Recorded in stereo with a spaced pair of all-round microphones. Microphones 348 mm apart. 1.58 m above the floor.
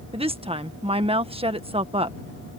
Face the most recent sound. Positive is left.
turn(degrees=-15)  # may be behind; listen again after turning